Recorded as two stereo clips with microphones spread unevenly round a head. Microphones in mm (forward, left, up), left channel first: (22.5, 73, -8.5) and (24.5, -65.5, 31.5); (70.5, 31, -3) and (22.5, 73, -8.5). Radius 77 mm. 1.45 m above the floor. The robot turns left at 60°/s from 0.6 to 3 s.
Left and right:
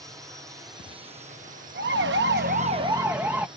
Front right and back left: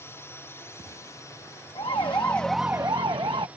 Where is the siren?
80° right; by 3.5 s 170° right.